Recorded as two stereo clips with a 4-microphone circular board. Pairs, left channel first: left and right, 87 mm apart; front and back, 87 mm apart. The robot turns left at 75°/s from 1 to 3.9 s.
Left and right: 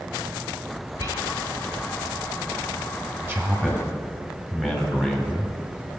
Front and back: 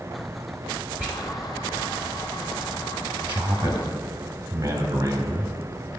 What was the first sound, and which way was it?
Whispering, 115° right.